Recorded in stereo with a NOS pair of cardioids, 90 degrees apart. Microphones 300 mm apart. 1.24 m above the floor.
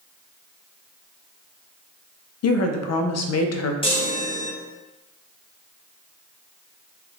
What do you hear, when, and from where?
2.4 s a woman speaking: 55° left, 0.6 m
3.8 s a chime: 20° left, 1.1 m